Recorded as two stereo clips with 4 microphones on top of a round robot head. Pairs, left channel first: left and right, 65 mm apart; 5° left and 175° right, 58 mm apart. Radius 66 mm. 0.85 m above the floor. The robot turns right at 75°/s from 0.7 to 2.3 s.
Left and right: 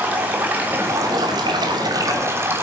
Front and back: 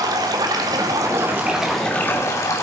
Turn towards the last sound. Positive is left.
turn(degrees=-40)